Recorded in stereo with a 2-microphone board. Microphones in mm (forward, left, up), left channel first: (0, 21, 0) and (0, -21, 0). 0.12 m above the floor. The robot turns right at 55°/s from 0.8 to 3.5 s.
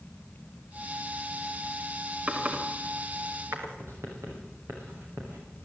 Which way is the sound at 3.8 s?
85° right.